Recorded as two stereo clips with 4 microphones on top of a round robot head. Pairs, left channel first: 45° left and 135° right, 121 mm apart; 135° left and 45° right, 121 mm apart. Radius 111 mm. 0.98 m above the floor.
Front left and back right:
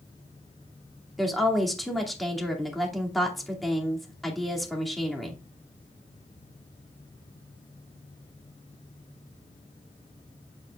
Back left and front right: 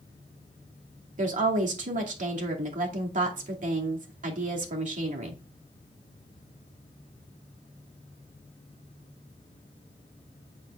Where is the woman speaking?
45° right, 2.5 m.